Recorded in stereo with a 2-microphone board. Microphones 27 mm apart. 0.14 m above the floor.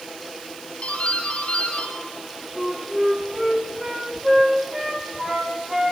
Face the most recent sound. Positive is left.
turn(degrees=-15)  # may be behind; listen again after turning